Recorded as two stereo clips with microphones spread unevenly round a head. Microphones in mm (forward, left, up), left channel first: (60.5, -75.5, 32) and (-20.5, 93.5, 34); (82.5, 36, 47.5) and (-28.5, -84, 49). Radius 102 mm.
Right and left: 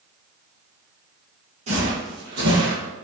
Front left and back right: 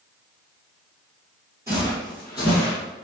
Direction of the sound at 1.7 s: 160° left.